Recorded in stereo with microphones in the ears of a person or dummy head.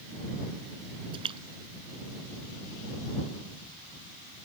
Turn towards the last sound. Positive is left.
turn(degrees=-30)  # may be behind; listen again after turning